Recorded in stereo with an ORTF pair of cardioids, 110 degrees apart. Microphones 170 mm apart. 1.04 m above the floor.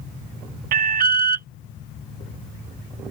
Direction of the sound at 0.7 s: 60° right.